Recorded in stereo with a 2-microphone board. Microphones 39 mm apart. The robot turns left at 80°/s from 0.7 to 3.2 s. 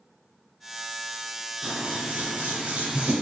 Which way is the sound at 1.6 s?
30° right.